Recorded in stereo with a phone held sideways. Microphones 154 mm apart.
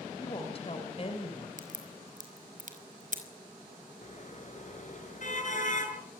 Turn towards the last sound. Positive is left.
turn(degrees=55)  # may be behind; listen again after turning